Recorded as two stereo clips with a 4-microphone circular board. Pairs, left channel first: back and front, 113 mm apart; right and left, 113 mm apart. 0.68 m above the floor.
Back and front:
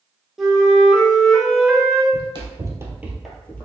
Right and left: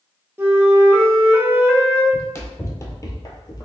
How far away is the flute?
About 0.7 m.